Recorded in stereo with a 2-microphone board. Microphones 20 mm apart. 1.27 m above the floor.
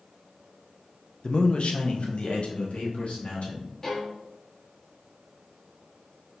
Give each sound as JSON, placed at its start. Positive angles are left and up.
{"t": 1.2, "sound": "a man speaking", "side_deg": 40, "distance_m": 0.5}
{"t": 3.8, "sound": "a violin", "side_deg": 25, "distance_m": 1.2}